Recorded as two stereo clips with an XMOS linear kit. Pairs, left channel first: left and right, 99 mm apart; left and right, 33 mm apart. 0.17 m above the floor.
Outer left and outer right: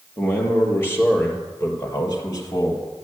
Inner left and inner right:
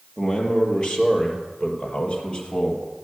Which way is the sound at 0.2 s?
20° left (ahead or behind).